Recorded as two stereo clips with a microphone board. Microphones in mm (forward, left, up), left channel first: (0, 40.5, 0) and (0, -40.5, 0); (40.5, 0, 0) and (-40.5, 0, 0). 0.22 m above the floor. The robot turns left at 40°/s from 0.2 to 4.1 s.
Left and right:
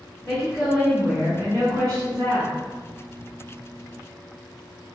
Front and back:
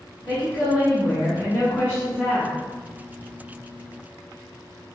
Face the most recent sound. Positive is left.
turn(degrees=-145)